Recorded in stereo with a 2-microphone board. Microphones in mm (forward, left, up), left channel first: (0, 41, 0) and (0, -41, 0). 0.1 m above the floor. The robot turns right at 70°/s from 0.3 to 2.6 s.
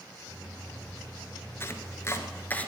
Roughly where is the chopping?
Left.